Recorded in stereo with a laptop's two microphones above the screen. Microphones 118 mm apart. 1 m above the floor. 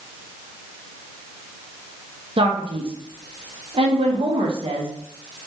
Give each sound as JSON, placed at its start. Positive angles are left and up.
{"t": 2.4, "sound": "a man speaking", "side_deg": -50, "distance_m": 0.7}